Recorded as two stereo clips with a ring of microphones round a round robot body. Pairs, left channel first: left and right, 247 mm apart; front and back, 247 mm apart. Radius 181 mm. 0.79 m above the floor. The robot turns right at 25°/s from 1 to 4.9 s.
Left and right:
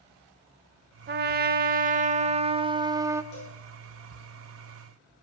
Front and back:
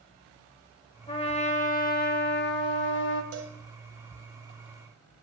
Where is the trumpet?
70° right, 0.6 m; by 3.2 s 15° right, 0.6 m.